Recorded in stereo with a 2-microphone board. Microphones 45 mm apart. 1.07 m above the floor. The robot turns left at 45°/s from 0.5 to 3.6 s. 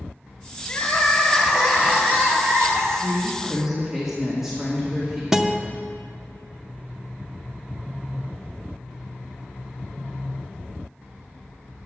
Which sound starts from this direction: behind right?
A woman speaking, at 2.9 s.